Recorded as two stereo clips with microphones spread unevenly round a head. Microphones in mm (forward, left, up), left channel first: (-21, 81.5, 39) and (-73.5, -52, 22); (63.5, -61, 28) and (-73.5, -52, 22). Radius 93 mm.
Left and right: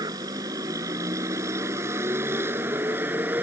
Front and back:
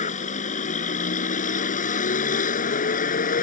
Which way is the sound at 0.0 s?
40° right.